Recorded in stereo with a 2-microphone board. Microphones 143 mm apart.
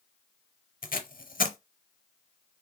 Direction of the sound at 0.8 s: 80° left.